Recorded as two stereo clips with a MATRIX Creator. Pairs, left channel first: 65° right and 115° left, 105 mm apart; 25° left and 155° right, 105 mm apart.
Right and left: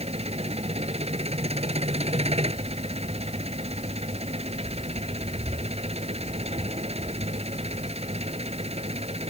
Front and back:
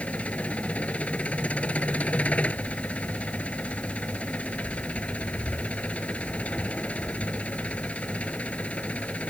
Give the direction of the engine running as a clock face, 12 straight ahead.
9 o'clock.